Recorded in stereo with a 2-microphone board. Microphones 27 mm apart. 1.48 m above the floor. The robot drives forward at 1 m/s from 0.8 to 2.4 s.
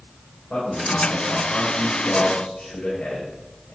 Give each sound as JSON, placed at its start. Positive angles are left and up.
{"t": 0.5, "sound": "a man speaking", "side_deg": 65, "distance_m": 7.0}